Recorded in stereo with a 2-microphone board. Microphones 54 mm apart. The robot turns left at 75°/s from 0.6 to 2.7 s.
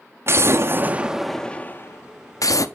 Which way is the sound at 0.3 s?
130° right.